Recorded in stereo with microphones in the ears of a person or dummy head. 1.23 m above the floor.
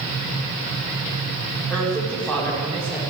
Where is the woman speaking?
5° left (ahead or behind), 3.5 m.